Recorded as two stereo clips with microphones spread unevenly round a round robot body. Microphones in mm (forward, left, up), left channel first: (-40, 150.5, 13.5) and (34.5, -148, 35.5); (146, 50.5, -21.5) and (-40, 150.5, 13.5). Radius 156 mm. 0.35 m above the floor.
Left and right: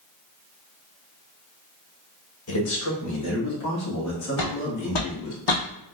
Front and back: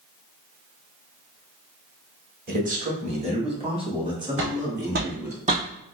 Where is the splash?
No splash in this recording.